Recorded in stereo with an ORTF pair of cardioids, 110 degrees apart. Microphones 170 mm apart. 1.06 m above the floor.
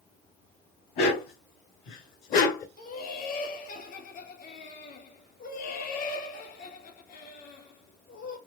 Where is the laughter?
60° left, 3 m.